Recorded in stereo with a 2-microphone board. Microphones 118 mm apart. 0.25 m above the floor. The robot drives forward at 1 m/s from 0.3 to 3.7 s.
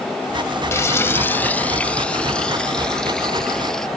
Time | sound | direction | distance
0.7 | frying | 25° left (ahead or behind) | ?